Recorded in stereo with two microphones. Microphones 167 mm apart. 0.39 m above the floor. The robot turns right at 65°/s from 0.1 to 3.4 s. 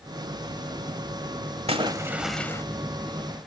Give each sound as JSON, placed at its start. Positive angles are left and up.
{"t": 1.7, "sound": "a splash", "azimuth_deg": -40, "distance_m": 1.2}